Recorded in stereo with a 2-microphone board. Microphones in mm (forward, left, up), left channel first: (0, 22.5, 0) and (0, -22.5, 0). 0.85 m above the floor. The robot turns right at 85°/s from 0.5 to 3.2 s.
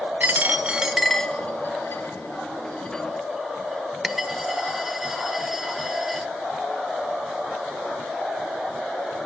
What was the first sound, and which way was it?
A dropped coin, 40° right (ahead or behind).